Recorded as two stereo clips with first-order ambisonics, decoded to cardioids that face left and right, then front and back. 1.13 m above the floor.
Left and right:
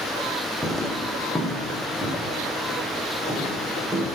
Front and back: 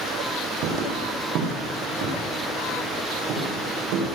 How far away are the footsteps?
About 2 m.